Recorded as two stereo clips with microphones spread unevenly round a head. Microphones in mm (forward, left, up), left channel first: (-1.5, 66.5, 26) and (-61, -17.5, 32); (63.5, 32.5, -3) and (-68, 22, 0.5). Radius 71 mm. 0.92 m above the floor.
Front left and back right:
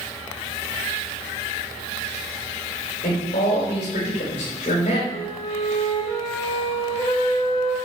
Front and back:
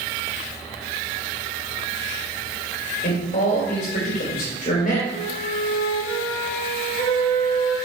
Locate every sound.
3.0 s a man speaking: 25° left, 3.5 m
5.1 s a flute: 20° left, 3 m